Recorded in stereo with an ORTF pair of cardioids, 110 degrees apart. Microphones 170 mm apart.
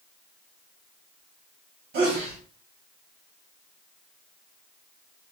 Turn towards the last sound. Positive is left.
turn(degrees=-65)